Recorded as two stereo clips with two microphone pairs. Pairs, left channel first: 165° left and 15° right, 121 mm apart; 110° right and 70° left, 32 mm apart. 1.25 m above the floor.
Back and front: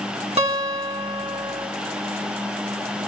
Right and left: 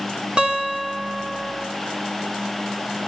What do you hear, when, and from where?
0.4 s a guitar: 15° left, 2 m